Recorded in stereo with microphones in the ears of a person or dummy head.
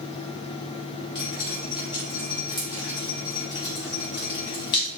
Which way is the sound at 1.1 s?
20° left (ahead or behind).